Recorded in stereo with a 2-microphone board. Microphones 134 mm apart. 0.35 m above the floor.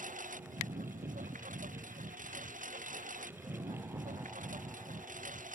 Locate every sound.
0.0 s a lawn mower: 85° right